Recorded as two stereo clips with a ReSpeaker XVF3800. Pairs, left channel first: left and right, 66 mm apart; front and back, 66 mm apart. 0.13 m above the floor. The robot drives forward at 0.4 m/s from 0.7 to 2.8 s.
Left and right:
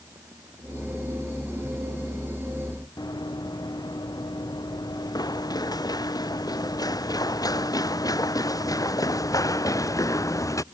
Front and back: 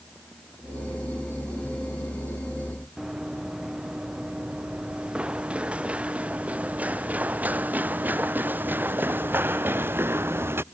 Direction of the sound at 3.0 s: 100° left.